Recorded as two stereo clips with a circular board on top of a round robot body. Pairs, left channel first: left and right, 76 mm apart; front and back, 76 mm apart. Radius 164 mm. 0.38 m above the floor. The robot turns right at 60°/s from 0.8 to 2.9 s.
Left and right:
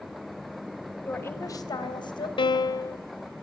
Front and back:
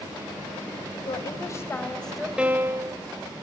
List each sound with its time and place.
1.1 s a woman speaking: 20° left, 3.5 m; by 2.3 s 95° left, 3.5 m
2.4 s a piano: 100° left, 1.0 m; by 3.0 s 135° left, 1.0 m